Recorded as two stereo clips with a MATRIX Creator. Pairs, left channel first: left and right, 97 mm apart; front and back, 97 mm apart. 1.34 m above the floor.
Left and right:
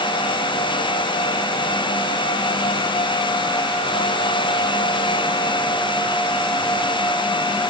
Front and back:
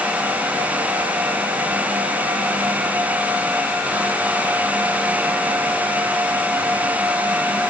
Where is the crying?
I don't hear crying.